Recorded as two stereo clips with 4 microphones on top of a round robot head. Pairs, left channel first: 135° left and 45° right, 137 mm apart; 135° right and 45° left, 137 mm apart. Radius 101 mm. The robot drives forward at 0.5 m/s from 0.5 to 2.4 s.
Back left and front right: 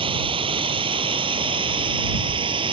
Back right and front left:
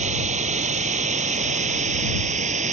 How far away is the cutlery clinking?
I don't hear cutlery clinking.